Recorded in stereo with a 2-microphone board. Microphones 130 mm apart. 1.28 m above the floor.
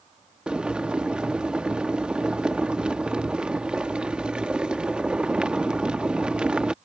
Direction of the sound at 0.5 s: 5° right (ahead or behind).